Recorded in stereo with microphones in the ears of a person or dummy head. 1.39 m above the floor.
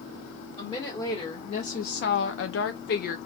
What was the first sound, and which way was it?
A woman speaking, 30° left (ahead or behind).